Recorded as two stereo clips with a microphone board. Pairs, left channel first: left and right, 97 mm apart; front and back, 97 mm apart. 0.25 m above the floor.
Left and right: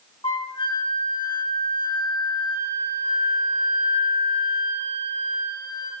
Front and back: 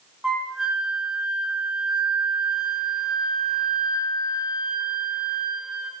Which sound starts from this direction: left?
A flute, at 0.2 s.